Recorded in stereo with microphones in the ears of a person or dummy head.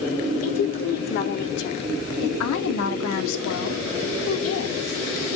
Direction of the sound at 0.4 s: 40° left (ahead or behind).